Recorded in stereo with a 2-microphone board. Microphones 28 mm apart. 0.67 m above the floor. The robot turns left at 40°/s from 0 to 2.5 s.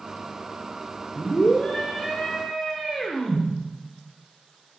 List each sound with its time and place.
1.1 s a scream: 60° left, 1.8 m; by 3.5 s 10° left, 1.8 m